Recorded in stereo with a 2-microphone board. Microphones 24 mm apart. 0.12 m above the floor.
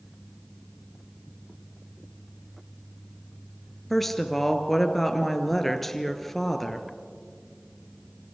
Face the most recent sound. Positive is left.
turn(degrees=5)  # may be behind; listen again after turning